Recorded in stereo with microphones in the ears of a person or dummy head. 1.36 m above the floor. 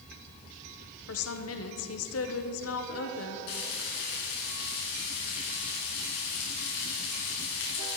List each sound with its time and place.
1.1 s a woman speaking: 75° left (ahead or behind), 1.0 m
3.5 s frying: 65° left (ahead or behind), 4.5 m